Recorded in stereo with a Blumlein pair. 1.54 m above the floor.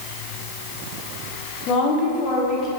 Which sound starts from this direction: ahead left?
A woman speaking, at 1.7 s.